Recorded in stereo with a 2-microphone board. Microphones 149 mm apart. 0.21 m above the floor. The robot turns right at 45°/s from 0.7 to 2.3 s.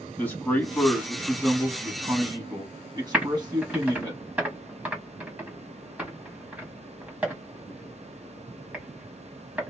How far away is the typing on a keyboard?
About 1.1 m.